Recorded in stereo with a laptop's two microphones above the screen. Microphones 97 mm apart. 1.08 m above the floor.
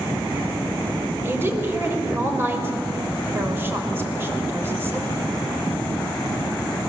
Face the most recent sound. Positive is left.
turn(degrees=-25)  # may be behind; listen again after turning